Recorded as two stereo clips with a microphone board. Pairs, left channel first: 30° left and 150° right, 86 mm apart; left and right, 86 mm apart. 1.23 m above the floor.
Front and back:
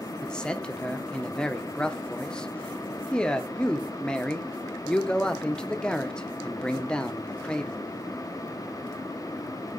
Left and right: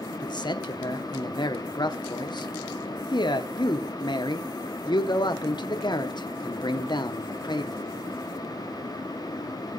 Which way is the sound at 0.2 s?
110° left.